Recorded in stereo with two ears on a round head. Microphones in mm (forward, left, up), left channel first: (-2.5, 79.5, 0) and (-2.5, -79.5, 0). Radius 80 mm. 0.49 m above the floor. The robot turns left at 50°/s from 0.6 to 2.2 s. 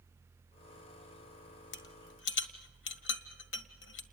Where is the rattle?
70° left (ahead or behind), 1.8 m.